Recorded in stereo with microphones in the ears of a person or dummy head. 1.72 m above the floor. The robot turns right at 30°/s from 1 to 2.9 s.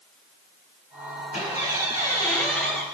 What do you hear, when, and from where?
1.3 s a squeak: 135° left, 7.5 m; by 2.8 s straight behind, 7.5 m